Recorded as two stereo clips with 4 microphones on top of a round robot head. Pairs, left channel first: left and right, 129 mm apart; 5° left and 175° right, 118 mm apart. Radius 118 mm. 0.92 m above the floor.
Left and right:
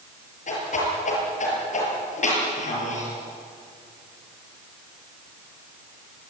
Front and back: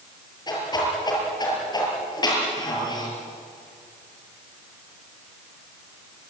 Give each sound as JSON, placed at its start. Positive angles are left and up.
{"t": 0.5, "sound": "a whoosh", "azimuth_deg": 60, "distance_m": 7.0}